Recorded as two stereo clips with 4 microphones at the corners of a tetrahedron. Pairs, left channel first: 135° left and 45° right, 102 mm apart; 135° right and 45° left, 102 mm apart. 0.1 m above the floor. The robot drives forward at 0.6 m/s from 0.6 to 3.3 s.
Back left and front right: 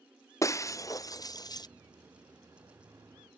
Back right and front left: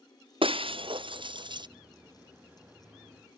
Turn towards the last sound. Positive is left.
turn(degrees=105)